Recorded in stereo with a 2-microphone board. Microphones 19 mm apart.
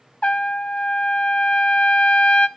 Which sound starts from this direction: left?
A trumpet, at 0.2 s.